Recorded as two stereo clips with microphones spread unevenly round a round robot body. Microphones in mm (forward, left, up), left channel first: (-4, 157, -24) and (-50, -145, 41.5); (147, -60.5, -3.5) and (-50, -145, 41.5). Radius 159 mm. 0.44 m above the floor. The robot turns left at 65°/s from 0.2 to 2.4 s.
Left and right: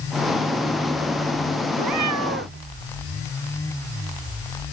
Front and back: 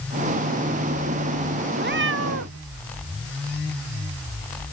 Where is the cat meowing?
115° right; by 2.6 s 155° right.